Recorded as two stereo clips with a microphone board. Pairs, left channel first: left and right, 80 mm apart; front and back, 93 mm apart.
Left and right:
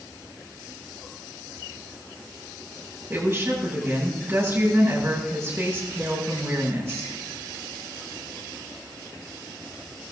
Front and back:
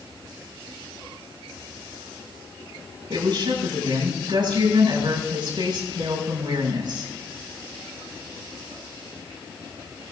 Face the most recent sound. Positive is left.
turn(degrees=-145)